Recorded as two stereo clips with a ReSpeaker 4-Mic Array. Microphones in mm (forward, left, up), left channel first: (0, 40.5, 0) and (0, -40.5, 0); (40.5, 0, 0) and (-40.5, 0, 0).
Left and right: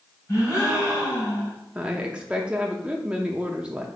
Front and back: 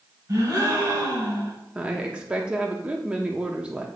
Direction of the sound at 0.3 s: 135° left.